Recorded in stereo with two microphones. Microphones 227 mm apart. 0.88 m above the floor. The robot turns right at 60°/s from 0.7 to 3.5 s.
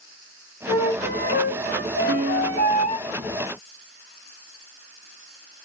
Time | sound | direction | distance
0.7 | a flute | 25° left | 1.5 m
2.1 | a piano | 55° right | 0.7 m